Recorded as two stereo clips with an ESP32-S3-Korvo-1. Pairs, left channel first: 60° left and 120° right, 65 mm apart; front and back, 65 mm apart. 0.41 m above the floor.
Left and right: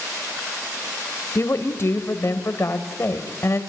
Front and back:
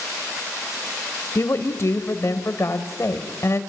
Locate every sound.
1.4 s a woman speaking: 25° left, 2.5 m